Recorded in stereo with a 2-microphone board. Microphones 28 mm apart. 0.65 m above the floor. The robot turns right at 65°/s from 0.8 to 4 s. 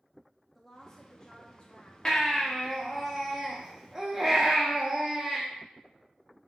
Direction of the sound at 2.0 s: 20° left (ahead or behind).